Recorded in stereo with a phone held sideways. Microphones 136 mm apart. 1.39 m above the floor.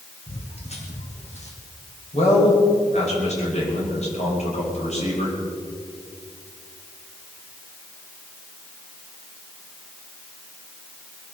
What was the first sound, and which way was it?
Footsteps, 50° left (ahead or behind).